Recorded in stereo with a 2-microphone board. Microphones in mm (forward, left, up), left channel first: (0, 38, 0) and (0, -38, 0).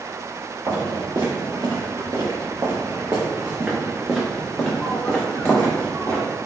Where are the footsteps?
75° right (ahead or behind), 1.7 m; by 6.2 s 30° left (ahead or behind), 1.9 m.